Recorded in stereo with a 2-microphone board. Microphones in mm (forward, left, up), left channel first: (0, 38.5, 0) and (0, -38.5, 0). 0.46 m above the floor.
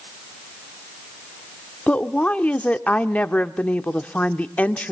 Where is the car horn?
No car horn in this recording.